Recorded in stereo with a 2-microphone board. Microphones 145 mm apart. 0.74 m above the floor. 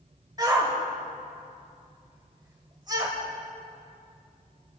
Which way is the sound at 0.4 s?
25° right (ahead or behind).